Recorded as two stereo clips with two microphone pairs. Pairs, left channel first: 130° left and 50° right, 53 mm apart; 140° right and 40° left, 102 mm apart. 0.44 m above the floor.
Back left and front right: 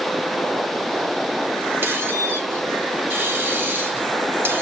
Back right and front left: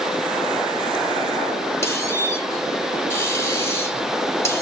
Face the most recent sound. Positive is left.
turn(degrees=-80)